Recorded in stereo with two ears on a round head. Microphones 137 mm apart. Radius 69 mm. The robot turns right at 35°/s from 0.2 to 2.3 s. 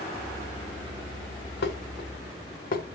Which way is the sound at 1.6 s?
85° left.